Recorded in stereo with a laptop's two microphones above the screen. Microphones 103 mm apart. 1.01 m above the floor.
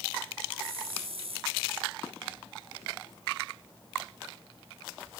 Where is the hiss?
70° right (ahead or behind), 3.5 m.